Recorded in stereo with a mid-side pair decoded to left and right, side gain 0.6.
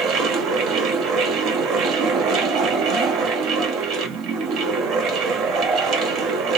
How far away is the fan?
About 1.0 m.